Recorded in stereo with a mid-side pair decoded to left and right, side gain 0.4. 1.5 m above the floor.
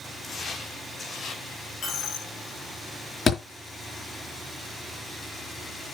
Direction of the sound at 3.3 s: 45° left.